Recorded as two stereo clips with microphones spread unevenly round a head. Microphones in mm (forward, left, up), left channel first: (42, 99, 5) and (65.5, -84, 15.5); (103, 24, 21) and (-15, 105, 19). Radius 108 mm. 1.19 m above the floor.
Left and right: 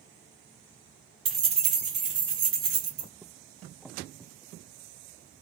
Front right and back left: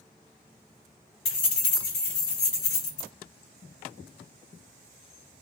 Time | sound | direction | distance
1.2 | keys jangling | 25° right | 2 m